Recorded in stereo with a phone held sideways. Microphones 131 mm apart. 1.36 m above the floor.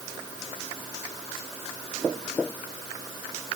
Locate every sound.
Only background noise.